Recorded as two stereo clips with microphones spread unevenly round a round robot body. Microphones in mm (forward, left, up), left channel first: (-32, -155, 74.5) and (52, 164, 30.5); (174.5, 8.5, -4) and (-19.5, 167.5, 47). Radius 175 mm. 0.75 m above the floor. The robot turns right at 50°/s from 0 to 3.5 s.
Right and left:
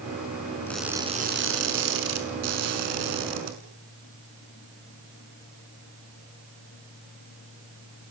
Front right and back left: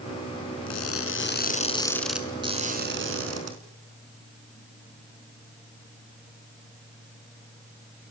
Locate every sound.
0.7 s crushing: 20° right, 5 m; by 3.5 s 120° left, 5 m